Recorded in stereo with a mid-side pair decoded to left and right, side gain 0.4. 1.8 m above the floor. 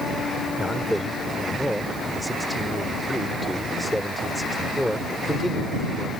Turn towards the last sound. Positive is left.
turn(degrees=-5)